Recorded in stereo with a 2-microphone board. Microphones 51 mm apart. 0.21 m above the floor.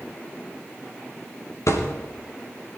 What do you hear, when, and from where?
1.7 s a thud: 80° left, 5 m